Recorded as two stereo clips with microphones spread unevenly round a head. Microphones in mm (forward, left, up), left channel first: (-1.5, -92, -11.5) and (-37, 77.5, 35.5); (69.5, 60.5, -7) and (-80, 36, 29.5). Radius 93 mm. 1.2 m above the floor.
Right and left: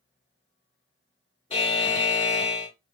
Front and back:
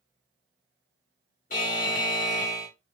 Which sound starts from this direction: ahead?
A buzzer, at 1.5 s.